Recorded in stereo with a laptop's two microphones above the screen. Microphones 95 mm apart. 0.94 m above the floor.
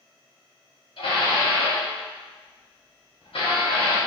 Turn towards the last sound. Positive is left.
turn(degrees=65)  # may be behind; listen again after turning